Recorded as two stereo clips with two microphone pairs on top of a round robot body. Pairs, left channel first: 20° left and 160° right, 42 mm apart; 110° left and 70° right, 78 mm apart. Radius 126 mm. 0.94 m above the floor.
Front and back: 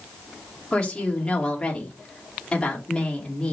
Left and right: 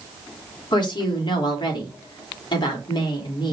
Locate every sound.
0.7 s a woman speaking: 90° left, 3.5 m